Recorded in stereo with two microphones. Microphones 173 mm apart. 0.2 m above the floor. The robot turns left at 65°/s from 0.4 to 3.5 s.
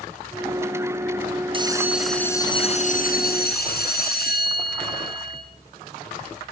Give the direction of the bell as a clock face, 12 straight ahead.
5 o'clock.